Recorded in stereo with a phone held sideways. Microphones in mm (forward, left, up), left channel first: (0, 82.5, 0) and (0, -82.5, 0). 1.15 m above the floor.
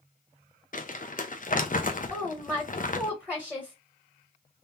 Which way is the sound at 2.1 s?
Centre (ahead or behind).